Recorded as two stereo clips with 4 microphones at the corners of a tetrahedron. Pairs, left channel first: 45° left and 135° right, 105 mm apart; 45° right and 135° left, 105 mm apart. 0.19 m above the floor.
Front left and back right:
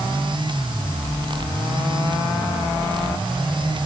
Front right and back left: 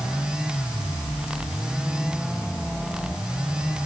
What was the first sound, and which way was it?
Only background noise.